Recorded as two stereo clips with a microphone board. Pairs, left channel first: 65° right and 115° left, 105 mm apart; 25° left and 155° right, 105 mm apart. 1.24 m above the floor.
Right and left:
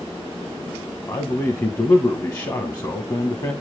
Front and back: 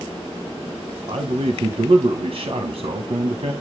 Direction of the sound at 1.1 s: 120° right.